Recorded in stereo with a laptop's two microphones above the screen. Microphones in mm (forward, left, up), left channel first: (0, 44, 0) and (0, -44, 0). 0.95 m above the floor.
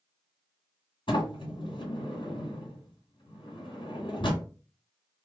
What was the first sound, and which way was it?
A sliding door, 65° left (ahead or behind).